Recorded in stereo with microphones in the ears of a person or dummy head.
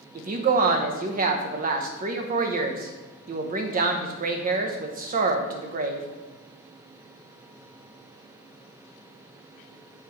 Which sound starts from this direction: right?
A woman speaking, at 0.1 s.